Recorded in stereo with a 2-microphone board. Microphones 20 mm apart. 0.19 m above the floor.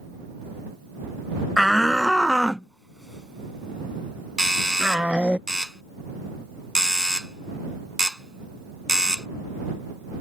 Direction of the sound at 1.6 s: 10° left (ahead or behind).